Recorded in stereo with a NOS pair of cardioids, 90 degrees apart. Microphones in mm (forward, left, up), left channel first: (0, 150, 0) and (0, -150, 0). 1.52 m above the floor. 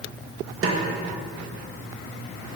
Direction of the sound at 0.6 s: 45° right.